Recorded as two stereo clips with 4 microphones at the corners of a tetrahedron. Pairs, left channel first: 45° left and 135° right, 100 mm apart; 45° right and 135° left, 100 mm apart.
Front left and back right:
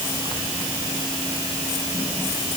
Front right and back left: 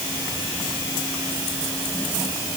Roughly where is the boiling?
I don't hear boiling.